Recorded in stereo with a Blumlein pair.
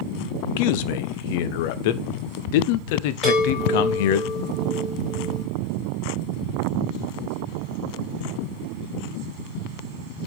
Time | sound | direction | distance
0.6 | a man speaking | 50° left | 0.7 m
3.2 | a chime | 15° left | 4.5 m